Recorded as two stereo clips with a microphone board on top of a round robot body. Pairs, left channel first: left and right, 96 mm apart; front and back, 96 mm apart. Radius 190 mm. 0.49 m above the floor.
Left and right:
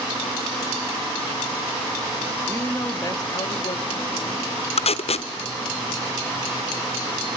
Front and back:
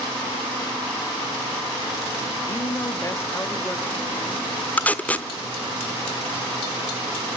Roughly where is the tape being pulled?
Left.